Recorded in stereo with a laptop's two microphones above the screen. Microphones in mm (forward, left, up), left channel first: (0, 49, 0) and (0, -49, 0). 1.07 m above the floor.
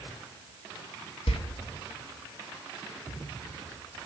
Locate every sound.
1.3 s a door slam: 80° left, 1.1 m